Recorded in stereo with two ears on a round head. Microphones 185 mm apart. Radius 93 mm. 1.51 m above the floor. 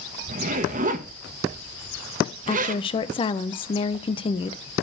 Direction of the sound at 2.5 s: 25° left (ahead or behind).